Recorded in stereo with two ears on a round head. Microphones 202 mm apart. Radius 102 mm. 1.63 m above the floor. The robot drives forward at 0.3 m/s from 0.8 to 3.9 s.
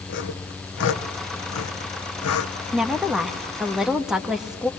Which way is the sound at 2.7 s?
5° right (ahead or behind).